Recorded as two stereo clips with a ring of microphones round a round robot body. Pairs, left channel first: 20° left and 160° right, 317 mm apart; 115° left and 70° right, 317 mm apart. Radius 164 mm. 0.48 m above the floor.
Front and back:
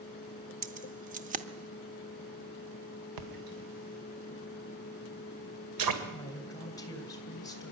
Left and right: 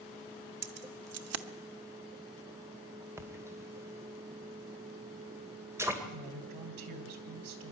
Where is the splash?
150° right, 2 m.